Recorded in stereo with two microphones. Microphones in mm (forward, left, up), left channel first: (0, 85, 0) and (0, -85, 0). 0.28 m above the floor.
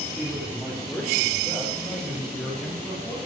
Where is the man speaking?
5° right (ahead or behind), 5.5 m; by 3.2 s 10° left (ahead or behind), 6.5 m.